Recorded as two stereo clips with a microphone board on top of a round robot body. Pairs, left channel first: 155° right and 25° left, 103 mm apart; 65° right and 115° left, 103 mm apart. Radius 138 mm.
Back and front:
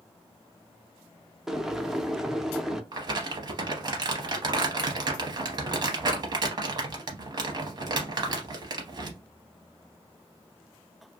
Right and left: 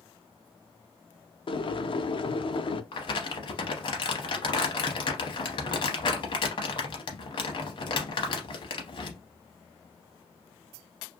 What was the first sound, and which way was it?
Boiling, 60° right.